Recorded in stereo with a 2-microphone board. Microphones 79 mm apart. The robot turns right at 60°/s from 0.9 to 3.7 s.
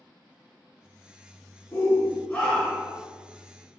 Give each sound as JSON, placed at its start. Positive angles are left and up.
{"t": 1.7, "sound": "a shout", "azimuth_deg": 105, "distance_m": 1.2}